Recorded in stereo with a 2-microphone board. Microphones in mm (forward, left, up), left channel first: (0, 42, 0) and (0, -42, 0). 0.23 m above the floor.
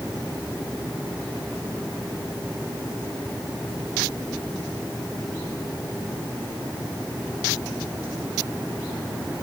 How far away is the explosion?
I don't hear an explosion.